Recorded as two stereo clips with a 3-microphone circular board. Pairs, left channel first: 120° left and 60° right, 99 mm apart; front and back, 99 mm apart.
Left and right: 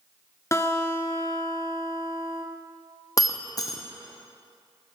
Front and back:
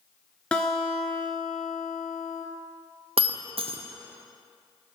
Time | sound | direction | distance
0.5 | a guitar | 75° left | 0.8 m
3.2 | breaking glass | 170° left | 0.6 m